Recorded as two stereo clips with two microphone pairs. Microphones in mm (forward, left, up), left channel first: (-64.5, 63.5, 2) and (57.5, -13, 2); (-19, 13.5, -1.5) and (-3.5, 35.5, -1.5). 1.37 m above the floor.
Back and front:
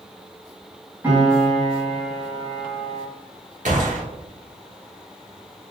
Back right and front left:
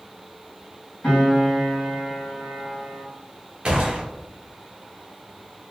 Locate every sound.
1.0 s a piano: 105° right, 1.9 m
3.6 s a gunshot: straight ahead, 1.0 m